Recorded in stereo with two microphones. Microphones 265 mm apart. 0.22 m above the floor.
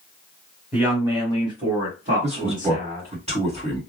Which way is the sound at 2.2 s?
25° right (ahead or behind).